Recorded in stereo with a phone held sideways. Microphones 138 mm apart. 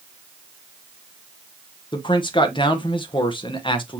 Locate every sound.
1.9 s a man speaking: 35° left (ahead or behind), 0.9 m